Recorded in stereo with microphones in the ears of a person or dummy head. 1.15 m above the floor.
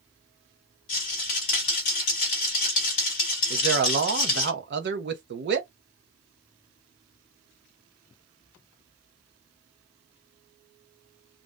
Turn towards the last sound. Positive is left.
turn(degrees=-50)  # may be behind; listen again after turning